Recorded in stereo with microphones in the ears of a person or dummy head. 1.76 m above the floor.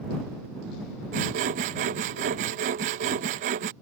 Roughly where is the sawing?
Right.